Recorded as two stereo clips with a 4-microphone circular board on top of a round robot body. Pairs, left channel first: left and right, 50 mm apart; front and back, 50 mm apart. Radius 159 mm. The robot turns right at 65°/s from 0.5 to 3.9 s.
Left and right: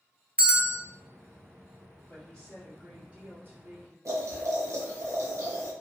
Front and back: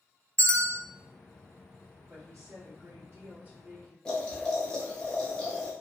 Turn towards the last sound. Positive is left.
turn(degrees=-75)